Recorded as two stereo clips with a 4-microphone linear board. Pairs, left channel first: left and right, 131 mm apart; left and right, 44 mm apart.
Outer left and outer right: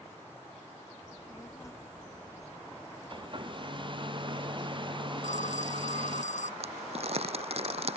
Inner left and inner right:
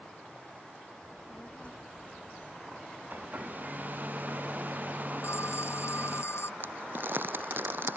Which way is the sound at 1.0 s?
25° left (ahead or behind).